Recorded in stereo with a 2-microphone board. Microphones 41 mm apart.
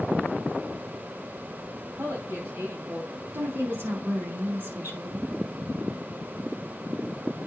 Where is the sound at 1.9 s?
80° right, 3.5 m.